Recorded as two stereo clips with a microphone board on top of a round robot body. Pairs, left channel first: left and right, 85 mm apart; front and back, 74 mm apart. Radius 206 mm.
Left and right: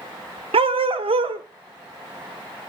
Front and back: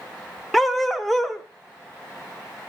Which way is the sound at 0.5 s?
85° right.